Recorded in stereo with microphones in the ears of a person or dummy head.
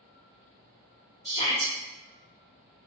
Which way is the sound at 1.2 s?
30° left (ahead or behind).